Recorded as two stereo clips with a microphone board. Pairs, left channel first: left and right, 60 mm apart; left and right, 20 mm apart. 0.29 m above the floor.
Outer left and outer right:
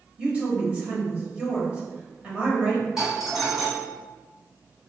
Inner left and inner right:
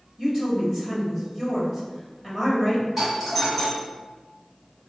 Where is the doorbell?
5° right (ahead or behind), 2.0 m.